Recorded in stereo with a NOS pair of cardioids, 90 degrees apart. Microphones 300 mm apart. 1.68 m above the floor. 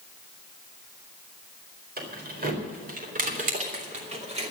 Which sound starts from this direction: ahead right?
Keys jangling, at 2.0 s.